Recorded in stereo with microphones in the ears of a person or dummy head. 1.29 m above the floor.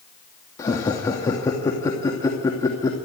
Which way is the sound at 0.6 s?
15° left (ahead or behind).